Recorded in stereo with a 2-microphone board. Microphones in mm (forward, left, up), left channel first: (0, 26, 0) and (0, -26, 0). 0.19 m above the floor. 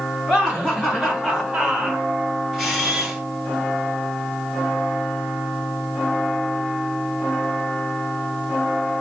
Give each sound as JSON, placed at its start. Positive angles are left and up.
{"t": 0.3, "sound": "laughter", "side_deg": 15, "distance_m": 2.0}
{"t": 2.5, "sound": "a camera shutter", "side_deg": 0, "distance_m": 2.5}